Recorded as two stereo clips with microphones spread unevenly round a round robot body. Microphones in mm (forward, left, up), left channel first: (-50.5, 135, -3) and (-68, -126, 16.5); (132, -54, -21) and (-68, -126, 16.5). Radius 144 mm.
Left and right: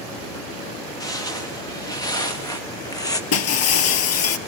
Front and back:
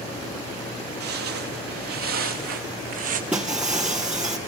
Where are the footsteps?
165° left, 4 m.